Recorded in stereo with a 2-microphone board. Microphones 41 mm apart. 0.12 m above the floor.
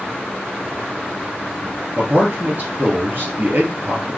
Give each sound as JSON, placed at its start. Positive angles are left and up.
{"t": 2.0, "sound": "a man speaking", "side_deg": -50, "distance_m": 1.8}